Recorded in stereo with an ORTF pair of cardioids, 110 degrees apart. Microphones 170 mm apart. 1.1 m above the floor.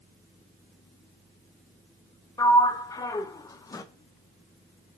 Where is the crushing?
No crushing in this recording.